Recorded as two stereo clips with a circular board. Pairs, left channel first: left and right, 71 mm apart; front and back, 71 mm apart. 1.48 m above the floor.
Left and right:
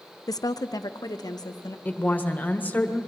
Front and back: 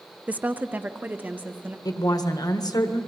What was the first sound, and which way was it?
A woman speaking, 110° left.